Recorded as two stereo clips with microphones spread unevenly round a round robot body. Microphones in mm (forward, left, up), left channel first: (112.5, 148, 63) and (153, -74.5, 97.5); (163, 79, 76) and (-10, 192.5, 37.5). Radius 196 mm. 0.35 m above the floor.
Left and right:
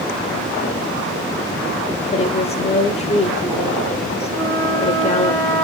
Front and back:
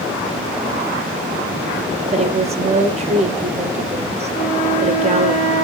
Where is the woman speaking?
135° left, 1.8 m.